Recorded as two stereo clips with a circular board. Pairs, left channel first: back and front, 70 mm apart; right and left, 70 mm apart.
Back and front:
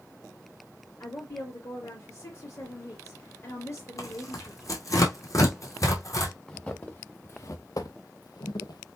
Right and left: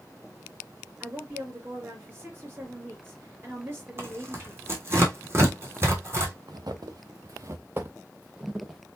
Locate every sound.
1.0 s a woman speaking: 140° left, 3.5 m
4.0 s tearing paper: 140° left, 2 m
6.5 s footsteps: 105° left, 1.4 m; by 8.8 s 175° left, 1.6 m